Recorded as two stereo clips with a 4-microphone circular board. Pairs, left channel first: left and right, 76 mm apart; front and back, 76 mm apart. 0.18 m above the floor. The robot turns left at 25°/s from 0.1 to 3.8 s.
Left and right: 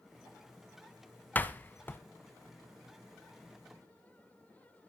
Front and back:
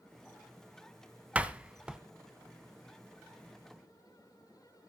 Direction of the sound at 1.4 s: 125° left.